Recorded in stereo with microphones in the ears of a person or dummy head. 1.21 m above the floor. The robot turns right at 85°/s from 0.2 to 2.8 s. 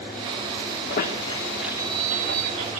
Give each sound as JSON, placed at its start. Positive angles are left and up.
{"t": 0.9, "sound": "a squeak", "side_deg": 60, "distance_m": 2.0}